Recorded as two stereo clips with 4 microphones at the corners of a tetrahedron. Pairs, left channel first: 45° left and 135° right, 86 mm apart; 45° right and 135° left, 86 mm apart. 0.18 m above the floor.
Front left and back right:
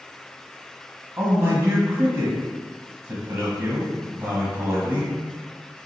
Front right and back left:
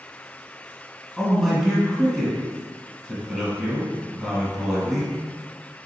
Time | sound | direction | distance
1.2 | a man speaking | 140° right | 1.3 m